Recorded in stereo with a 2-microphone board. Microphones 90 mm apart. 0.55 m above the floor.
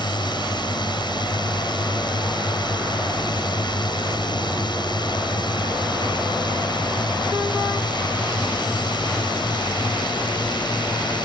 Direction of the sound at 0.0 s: 55° left (ahead or behind).